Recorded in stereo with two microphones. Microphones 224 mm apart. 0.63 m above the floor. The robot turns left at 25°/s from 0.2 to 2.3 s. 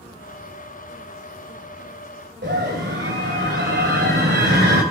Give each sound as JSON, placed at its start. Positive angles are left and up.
{"t": 2.4, "sound": "a scream", "side_deg": -55, "distance_m": 3.0}